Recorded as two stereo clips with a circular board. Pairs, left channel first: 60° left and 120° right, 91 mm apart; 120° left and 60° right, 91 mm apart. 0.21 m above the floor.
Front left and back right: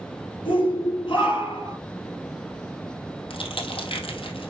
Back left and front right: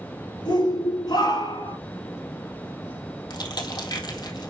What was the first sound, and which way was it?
A shout, 85° left.